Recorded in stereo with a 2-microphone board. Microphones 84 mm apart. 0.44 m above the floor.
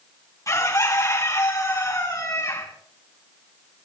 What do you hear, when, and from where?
0.5 s a bird: 40° left (ahead or behind), 4 m